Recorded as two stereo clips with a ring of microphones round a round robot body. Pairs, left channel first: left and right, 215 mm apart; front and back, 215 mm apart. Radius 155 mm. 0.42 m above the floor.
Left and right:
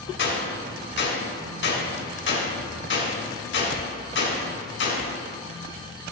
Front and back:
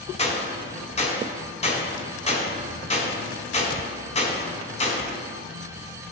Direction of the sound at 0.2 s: 60° left.